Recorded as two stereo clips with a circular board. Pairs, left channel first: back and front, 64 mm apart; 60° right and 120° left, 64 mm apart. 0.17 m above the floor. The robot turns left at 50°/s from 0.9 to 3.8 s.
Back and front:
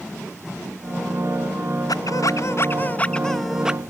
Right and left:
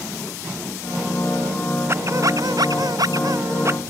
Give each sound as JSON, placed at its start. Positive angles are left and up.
{"t": 1.9, "sound": "a squeak", "azimuth_deg": 165}